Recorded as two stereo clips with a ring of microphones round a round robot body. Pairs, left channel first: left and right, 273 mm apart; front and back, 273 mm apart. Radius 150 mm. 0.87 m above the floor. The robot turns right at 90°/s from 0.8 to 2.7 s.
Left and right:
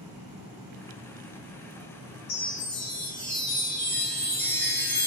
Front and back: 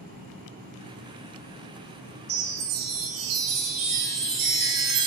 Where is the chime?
140° left, 1.1 m; by 5.1 s 175° left, 1.1 m.